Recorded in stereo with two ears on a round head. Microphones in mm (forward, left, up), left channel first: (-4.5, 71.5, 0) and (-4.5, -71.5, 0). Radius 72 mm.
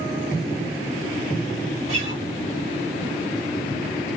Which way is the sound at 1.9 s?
45° right (ahead or behind).